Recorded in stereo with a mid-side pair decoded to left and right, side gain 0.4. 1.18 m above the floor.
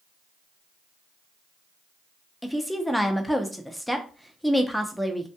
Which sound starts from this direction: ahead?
A woman speaking, at 2.4 s.